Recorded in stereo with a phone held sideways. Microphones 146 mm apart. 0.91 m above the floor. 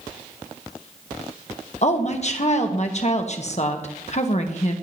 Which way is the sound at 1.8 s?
50° left (ahead or behind).